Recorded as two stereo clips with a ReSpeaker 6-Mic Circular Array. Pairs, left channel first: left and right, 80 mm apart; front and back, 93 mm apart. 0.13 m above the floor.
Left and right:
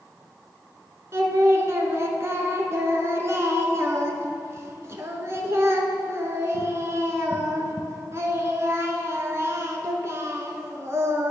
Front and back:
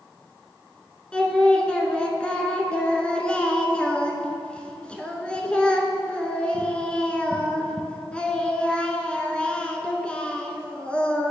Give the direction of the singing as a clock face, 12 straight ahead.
2 o'clock.